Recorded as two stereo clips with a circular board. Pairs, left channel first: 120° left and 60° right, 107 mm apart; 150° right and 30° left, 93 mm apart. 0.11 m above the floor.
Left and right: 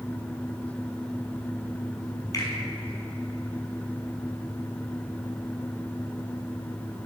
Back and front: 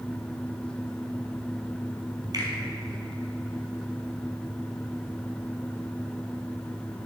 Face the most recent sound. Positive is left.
turn(degrees=65)